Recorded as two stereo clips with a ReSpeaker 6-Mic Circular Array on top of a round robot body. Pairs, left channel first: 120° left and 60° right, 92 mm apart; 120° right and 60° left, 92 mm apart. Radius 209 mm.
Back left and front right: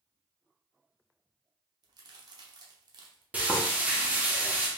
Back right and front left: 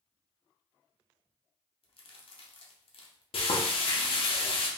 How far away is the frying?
About 0.7 m.